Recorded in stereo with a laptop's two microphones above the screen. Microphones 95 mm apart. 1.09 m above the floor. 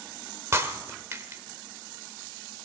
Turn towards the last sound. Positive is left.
turn(degrees=-30)  # may be behind; listen again after turning